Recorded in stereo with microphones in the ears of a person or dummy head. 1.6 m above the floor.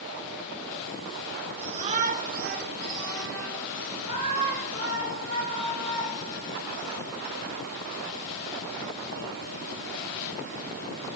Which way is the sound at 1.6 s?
30° right (ahead or behind).